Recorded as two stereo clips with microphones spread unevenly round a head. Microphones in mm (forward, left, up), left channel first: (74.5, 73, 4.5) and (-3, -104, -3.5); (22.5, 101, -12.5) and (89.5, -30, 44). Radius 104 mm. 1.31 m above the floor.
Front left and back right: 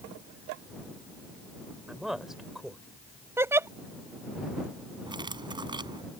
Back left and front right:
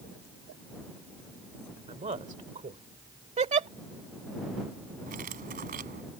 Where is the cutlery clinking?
45° right.